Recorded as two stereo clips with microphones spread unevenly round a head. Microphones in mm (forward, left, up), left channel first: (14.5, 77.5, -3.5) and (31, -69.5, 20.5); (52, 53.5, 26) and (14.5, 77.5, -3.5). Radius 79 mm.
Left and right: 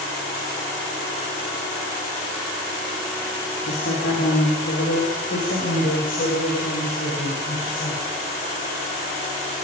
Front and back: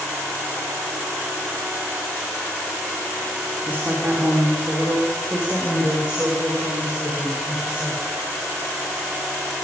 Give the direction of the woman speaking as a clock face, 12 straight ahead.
9 o'clock.